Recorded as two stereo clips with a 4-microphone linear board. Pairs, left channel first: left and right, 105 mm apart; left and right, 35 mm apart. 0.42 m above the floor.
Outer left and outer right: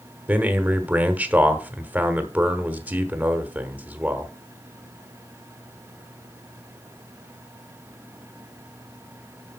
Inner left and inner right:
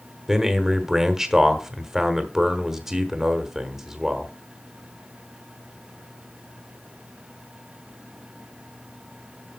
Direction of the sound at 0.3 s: 15° right (ahead or behind).